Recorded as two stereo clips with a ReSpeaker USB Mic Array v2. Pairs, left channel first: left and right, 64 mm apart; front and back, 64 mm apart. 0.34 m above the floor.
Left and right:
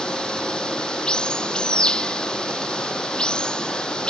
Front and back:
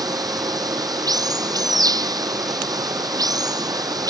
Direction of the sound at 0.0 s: 165° left.